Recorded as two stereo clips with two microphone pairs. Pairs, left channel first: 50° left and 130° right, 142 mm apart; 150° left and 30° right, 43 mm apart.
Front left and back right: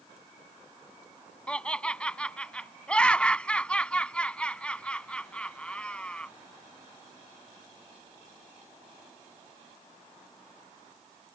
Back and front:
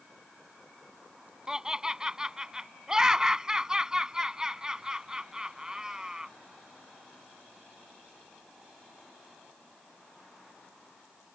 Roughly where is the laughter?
Ahead.